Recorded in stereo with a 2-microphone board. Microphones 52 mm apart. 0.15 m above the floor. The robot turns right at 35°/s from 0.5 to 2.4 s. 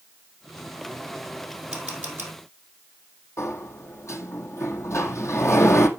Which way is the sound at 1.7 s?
15° right (ahead or behind).